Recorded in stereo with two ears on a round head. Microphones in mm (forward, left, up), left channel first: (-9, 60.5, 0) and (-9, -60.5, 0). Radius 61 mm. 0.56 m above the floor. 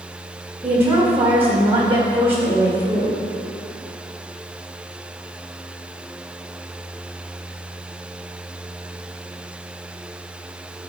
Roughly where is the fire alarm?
I don't hear a fire alarm.